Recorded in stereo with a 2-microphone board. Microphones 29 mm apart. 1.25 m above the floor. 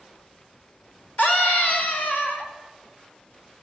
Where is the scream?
70° left (ahead or behind), 4.5 m; by 2.5 s 75° left (ahead or behind), 4 m.